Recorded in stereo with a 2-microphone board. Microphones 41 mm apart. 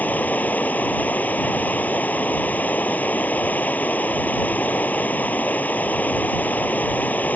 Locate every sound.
0.0 s running water: 45° left (ahead or behind)